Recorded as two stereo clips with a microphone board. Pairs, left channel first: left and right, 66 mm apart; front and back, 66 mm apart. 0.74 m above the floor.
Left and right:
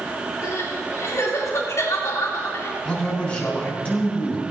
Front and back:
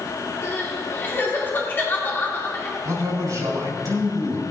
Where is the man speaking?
160° left, 3.5 m.